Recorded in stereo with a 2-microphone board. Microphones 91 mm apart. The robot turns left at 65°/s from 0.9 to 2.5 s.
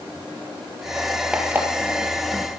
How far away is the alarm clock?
About 2 m.